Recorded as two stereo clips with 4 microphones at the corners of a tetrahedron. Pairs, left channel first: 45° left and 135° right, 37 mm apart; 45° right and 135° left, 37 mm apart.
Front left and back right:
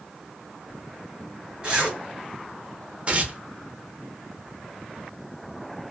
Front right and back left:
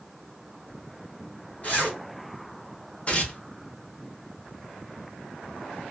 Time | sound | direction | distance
1.6 | a zipper | 80° right | 1.9 m
3.1 | tearing paper | 90° right | 0.6 m